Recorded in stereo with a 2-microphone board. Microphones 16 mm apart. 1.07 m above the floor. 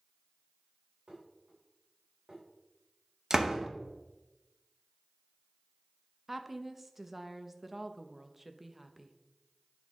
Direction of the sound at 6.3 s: 10° right (ahead or behind).